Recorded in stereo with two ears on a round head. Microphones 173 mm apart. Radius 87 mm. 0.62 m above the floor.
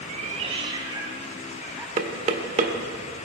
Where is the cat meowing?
45° right (ahead or behind), 1.6 m; by 1.9 s 5° right (ahead or behind), 2.5 m.